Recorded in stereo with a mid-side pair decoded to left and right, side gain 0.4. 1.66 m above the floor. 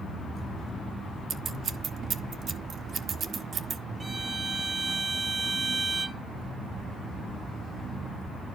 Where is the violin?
30° right, 0.9 m.